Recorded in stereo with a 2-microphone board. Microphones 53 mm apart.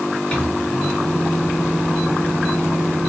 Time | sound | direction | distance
0.3 | a microwave | 20° left (ahead or behind) | 2 m